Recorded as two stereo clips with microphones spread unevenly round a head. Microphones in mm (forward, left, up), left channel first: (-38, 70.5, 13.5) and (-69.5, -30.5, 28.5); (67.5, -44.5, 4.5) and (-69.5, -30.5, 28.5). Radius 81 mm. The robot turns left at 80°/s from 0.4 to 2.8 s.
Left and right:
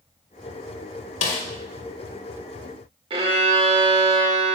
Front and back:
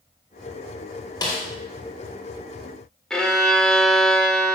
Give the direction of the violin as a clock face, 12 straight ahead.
3 o'clock.